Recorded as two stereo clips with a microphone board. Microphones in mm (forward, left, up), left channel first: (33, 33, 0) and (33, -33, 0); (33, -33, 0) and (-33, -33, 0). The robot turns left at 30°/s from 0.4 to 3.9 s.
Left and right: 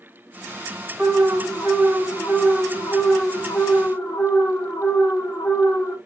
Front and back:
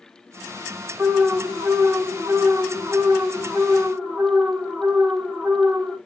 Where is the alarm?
165° right, 1.5 m; by 6.0 s 110° left, 1.5 m.